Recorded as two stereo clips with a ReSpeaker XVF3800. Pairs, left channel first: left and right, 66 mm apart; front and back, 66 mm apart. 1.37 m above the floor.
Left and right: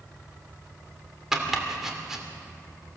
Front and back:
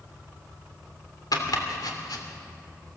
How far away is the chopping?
About 3 m.